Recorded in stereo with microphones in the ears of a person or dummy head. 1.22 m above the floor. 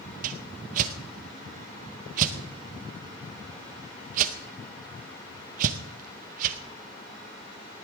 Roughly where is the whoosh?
Right.